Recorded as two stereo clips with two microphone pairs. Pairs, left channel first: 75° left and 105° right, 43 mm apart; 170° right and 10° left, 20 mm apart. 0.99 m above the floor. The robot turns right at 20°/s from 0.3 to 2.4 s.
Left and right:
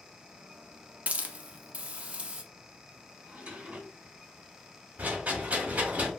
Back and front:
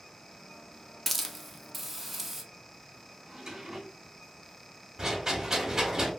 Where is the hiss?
95° right, 0.5 m; by 2.4 s 65° right, 0.5 m.